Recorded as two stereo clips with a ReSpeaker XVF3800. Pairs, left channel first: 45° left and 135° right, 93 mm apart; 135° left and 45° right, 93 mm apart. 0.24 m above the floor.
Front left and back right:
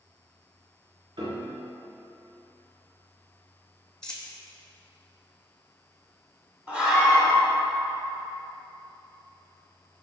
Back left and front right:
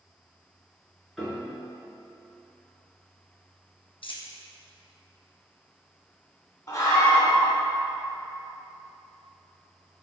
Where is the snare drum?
No snare drum in this recording.